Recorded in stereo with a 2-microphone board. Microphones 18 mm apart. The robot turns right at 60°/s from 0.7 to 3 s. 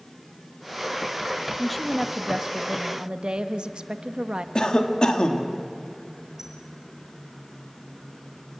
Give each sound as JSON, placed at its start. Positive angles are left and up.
{"t": 1.6, "sound": "a woman speaking", "azimuth_deg": 170, "distance_m": 1.1}
{"t": 4.5, "sound": "a cough", "side_deg": 55, "distance_m": 2.0}
{"t": 6.4, "sound": "a squeak", "side_deg": -25, "distance_m": 3.5}